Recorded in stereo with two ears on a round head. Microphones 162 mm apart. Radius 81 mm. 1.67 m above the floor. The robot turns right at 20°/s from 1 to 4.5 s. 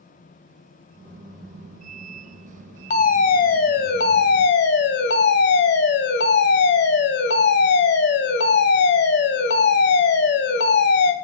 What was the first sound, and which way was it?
A fire alarm, 50° left.